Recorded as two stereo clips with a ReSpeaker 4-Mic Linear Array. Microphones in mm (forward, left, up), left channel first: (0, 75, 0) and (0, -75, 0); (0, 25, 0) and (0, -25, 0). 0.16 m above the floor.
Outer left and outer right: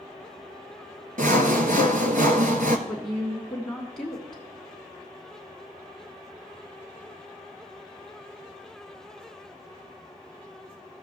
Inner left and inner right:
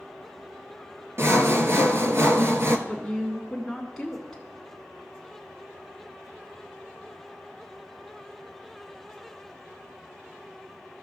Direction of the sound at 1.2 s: 65° right (ahead or behind).